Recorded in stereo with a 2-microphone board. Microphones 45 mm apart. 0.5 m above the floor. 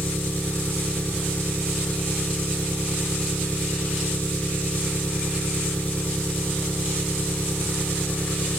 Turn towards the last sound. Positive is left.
turn(degrees=35)  # may be behind; listen again after turning